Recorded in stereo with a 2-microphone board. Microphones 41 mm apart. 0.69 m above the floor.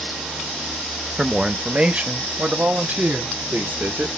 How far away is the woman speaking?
About 0.7 m.